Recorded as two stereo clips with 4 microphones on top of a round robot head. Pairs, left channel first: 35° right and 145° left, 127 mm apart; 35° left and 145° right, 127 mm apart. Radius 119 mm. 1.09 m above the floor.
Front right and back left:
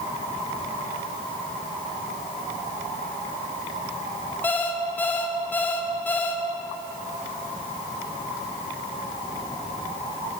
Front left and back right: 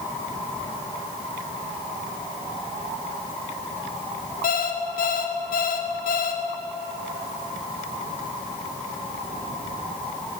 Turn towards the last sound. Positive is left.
turn(degrees=40)